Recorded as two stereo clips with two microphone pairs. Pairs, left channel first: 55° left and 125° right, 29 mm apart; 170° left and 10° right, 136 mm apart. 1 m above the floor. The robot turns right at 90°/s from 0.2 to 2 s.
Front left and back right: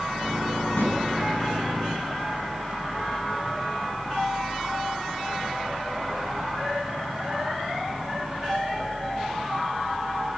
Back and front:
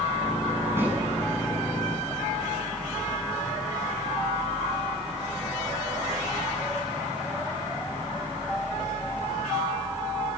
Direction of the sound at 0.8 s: 60° left.